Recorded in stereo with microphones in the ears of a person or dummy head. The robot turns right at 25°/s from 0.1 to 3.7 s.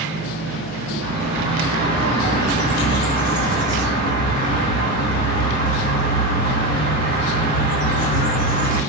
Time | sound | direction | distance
1.0 | a bird | 170° right | 1.2 m